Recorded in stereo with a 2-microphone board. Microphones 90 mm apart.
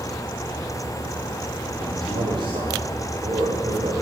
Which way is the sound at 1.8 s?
50° right (ahead or behind).